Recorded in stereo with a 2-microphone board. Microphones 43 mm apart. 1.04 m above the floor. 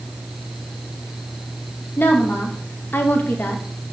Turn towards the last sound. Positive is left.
turn(degrees=50)  # may be behind; listen again after turning